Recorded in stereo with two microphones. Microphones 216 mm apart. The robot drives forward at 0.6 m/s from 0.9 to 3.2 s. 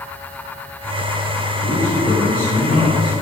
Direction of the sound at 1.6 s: 45° left (ahead or behind).